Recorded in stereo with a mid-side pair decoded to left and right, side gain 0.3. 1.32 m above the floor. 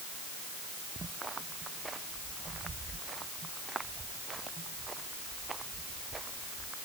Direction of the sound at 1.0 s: 45° right.